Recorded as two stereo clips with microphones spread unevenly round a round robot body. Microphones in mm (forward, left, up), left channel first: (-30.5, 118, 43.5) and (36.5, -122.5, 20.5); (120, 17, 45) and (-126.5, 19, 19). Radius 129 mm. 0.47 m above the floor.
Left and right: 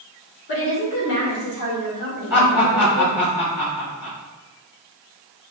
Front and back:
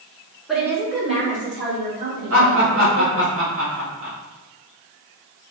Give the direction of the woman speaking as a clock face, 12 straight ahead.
9 o'clock.